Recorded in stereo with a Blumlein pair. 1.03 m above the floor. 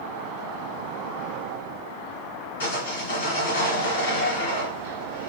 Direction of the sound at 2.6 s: 70° left.